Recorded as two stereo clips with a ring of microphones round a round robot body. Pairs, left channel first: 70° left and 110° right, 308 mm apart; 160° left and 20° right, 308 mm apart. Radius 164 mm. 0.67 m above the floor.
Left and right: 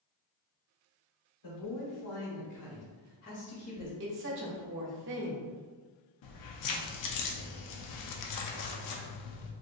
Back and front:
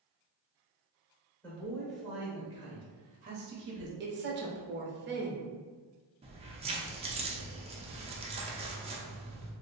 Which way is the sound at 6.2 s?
50° left.